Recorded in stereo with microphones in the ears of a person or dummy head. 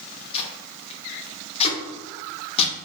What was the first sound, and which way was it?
Tape being pulled, 40° left (ahead or behind).